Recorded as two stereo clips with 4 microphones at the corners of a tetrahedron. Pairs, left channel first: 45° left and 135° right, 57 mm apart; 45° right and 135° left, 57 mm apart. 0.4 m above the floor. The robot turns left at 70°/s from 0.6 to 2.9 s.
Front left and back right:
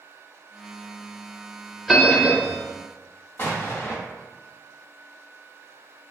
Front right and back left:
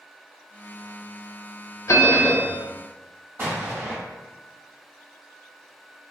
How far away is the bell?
About 0.5 m.